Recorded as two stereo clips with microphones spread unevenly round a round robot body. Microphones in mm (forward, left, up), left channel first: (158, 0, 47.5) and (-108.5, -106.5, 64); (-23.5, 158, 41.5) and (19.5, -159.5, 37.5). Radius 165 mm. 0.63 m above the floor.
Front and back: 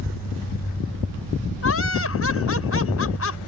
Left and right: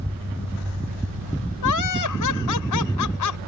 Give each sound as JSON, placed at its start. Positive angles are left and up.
{"t": 1.6, "sound": "laughter", "azimuth_deg": 65}